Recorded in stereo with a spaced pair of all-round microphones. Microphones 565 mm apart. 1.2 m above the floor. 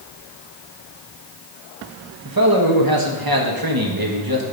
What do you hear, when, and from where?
2.2 s a man speaking: 40° right (ahead or behind), 1.4 m